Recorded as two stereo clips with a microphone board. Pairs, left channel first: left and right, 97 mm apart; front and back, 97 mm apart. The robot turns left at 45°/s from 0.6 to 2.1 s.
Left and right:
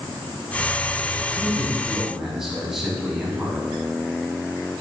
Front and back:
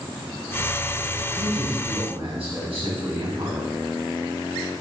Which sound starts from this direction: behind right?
A man speaking, at 1.4 s.